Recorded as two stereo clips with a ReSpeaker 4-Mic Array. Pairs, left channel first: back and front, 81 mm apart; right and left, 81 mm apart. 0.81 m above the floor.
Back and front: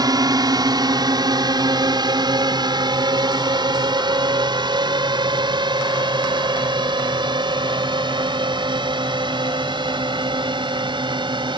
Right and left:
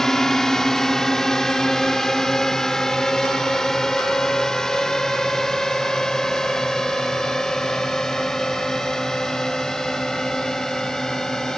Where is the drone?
5° right.